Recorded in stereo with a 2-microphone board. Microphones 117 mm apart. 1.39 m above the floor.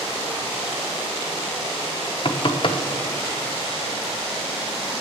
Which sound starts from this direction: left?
Knocking, at 2.2 s.